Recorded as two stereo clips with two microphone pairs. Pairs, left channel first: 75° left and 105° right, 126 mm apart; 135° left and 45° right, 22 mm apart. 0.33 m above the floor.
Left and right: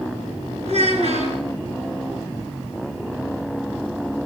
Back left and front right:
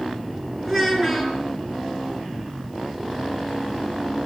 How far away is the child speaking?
About 2 m.